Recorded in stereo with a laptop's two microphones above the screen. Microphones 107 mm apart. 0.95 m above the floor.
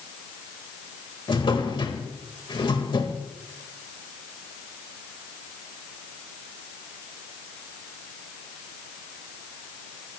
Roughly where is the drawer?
Left.